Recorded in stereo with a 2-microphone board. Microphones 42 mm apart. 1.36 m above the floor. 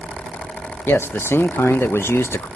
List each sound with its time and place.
0.9 s a man speaking: 70° left (ahead or behind), 0.8 m